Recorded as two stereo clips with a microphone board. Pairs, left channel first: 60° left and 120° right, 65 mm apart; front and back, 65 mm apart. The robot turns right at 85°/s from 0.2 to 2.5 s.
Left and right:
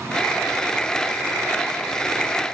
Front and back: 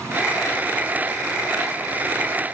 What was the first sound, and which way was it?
Only background noise.